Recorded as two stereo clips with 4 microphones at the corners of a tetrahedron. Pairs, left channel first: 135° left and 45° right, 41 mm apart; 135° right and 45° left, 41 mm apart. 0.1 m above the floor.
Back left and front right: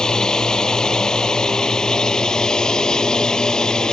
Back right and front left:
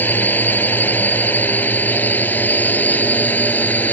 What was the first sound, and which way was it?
A drone, 160° right.